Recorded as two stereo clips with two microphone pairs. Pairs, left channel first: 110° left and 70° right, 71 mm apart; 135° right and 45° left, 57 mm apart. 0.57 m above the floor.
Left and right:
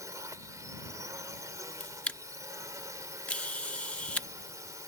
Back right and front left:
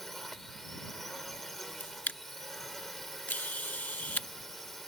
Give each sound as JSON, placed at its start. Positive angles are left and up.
{"t": 0.0, "sound": "a drone", "azimuth_deg": -50}
{"t": 1.8, "sound": "a camera shutter", "azimuth_deg": 175}